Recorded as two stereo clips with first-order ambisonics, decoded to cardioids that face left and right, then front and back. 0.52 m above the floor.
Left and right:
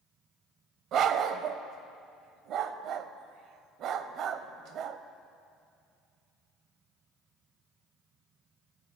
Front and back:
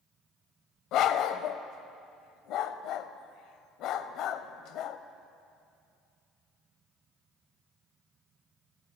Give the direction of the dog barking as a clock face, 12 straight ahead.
1 o'clock.